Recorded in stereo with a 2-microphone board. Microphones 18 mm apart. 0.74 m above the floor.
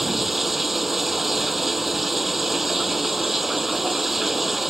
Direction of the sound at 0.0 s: 10° right (ahead or behind).